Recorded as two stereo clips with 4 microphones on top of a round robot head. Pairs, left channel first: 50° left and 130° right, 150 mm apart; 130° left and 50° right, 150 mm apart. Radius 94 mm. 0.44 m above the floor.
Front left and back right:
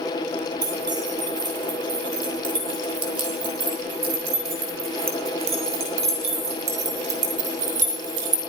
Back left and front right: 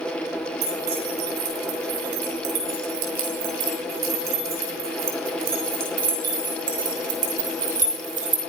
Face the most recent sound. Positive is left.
turn(degrees=-95)